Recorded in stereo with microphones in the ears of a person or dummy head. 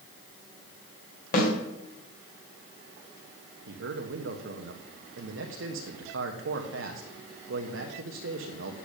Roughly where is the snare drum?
Left.